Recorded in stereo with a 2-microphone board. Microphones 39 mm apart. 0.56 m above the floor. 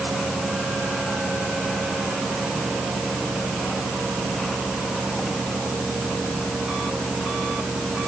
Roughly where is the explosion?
No explosion in this recording.